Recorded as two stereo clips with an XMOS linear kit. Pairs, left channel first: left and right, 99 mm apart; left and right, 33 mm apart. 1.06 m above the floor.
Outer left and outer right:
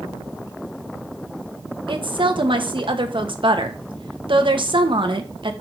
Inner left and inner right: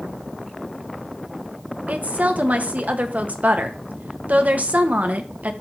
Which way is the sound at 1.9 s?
55° right (ahead or behind).